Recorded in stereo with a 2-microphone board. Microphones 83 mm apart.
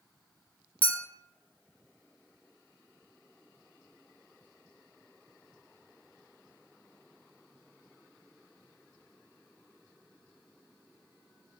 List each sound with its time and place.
0.8 s a clink: 25° left (ahead or behind), 0.7 m